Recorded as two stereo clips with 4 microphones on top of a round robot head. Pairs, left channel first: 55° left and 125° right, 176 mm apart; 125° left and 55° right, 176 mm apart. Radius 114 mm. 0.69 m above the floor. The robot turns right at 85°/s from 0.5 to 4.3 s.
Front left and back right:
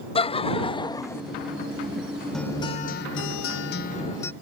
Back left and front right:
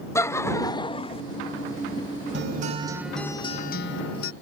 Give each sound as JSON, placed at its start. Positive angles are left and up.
{"t": 0.1, "sound": "laughter", "azimuth_deg": 65}
{"t": 2.3, "sound": "a guitar", "azimuth_deg": -30}